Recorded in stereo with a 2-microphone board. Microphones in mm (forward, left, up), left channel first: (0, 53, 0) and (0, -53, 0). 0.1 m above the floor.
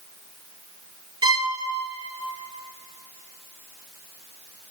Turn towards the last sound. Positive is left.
turn(degrees=-45)  # may be behind; listen again after turning